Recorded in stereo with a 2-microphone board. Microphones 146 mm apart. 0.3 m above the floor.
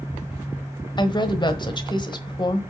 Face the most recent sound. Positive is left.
turn(degrees=35)  # may be behind; listen again after turning